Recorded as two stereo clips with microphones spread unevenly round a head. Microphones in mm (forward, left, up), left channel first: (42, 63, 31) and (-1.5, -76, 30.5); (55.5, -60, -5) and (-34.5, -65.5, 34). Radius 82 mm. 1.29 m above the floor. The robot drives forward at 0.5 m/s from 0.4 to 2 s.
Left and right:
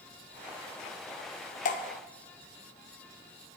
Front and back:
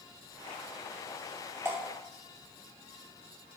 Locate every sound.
1.6 s dripping: 100° left, 0.9 m; by 1.8 s 105° left, 0.9 m